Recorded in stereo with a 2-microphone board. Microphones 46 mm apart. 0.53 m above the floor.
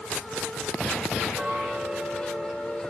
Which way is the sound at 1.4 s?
20° right (ahead or behind).